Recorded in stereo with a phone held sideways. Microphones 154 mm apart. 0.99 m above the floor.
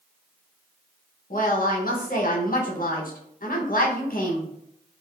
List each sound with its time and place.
1.3 s a woman speaking: 65° left (ahead or behind), 0.8 m